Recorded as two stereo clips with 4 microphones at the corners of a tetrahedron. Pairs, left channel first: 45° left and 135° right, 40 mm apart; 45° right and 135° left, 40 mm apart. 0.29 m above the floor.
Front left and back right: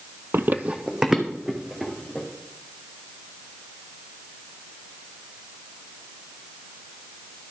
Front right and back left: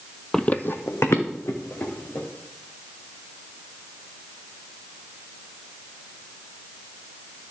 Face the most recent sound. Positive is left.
turn(degrees=-45)